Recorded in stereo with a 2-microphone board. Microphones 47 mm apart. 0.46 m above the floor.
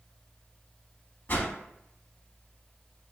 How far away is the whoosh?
About 0.5 m.